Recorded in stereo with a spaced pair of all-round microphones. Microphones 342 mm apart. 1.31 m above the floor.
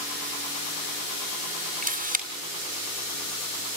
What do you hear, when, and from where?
1.8 s a camera shutter: 25° right (ahead or behind), 2.5 m